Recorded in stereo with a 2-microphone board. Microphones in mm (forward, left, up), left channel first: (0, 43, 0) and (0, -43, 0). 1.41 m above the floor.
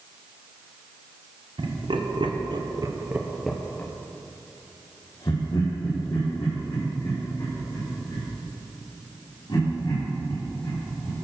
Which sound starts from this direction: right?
Laughter, at 1.6 s.